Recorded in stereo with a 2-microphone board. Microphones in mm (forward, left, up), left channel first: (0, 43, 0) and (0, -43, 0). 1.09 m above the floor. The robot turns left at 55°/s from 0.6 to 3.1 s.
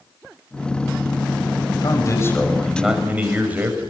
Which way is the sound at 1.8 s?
50° left.